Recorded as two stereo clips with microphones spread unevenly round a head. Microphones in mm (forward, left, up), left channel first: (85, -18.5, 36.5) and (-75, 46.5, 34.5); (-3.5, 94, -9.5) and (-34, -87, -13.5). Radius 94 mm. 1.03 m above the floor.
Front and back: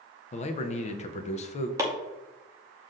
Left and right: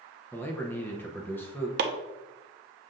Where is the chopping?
125° right, 0.6 m.